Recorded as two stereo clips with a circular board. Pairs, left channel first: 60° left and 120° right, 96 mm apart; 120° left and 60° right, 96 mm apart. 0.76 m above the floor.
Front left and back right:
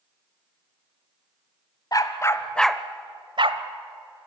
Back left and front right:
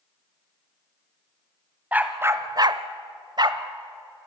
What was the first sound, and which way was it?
A dog barking, 15° left.